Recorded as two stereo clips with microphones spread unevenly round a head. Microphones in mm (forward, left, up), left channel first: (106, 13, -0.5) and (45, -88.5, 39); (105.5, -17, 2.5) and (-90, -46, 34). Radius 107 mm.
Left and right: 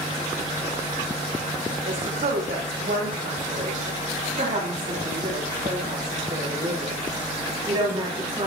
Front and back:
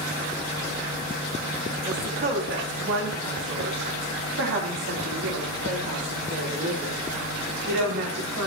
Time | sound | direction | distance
1.9 | a woman speaking | 135° right | 3.5 m